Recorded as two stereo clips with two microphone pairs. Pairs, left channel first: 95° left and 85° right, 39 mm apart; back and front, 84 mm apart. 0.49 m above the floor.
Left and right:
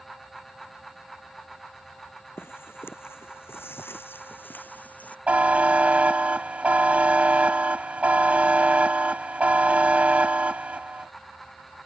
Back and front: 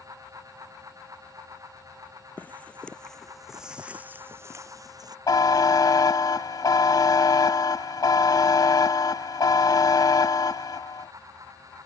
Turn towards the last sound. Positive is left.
turn(degrees=-140)